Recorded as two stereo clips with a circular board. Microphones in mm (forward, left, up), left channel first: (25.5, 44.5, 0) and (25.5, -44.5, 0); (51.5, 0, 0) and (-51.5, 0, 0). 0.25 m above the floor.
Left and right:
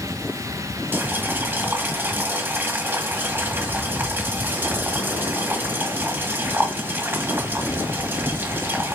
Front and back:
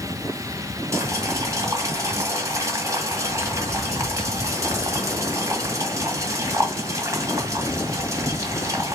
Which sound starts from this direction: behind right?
Boiling, at 0.9 s.